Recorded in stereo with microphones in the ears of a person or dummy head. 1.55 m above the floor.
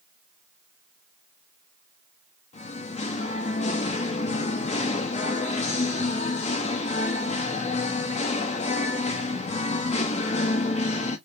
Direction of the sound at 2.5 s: 40° left (ahead or behind).